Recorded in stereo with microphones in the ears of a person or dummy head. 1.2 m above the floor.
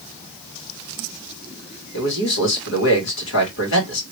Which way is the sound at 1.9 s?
60° left (ahead or behind).